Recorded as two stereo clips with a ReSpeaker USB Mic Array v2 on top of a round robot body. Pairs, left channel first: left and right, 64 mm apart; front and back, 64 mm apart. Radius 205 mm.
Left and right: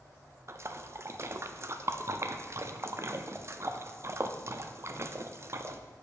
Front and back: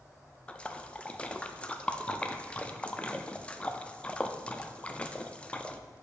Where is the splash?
65° right, 0.7 m.